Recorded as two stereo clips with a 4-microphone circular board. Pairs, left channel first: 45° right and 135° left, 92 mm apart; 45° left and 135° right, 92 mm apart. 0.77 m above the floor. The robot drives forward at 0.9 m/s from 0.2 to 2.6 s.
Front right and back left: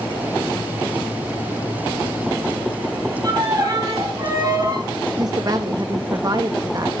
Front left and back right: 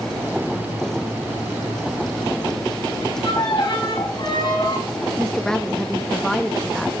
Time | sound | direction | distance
3.2 | a violin | 85° left | 4.5 m
5.2 | a woman speaking | 125° left | 0.5 m